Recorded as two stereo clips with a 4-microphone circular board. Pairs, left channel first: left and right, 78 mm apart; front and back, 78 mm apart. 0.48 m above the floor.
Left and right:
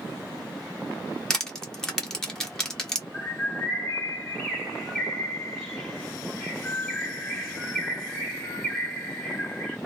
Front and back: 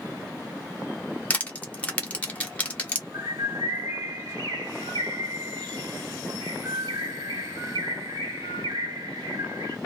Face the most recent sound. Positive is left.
turn(degrees=165)